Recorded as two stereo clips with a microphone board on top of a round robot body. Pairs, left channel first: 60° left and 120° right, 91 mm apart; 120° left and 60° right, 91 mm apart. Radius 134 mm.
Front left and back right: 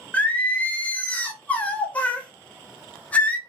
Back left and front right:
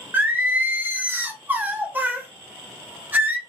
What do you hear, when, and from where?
0.1 s singing: 5° right, 0.8 m